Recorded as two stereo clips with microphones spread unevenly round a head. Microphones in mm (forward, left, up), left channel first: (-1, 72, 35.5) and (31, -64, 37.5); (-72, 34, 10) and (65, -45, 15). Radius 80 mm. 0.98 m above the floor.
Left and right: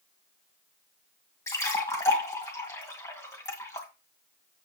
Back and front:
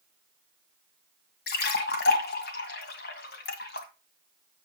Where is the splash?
175° left, 1.9 m.